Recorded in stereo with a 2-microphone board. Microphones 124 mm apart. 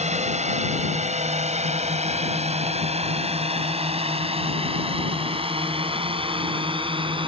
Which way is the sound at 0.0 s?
65° right (ahead or behind).